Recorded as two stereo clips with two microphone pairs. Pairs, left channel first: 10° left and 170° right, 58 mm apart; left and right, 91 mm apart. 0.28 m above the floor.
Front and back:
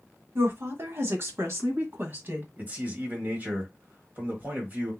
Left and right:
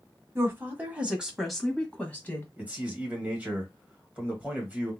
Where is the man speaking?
155° right, 1.7 m.